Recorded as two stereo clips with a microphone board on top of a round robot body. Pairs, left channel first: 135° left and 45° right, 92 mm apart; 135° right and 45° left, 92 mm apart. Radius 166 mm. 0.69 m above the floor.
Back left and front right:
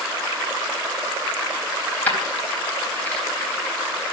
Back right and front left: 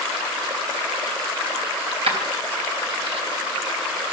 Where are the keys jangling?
60° left, 3.5 m.